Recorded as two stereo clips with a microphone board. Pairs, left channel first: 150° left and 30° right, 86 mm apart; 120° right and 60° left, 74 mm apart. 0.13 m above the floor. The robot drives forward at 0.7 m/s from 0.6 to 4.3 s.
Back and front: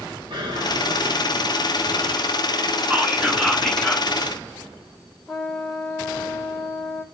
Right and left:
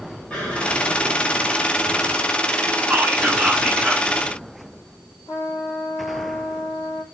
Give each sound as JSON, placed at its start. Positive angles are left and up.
{"t": 0.3, "sound": "an explosion", "azimuth_deg": -45, "distance_m": 6.5}
{"t": 2.9, "sound": "whispering", "azimuth_deg": 15, "distance_m": 1.2}
{"t": 5.3, "sound": "a trumpet", "azimuth_deg": -120, "distance_m": 4.0}